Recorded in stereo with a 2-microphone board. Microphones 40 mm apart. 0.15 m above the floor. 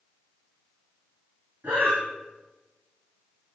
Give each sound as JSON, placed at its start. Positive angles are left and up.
{"t": 1.6, "sound": "breathing", "side_deg": -65, "distance_m": 2.5}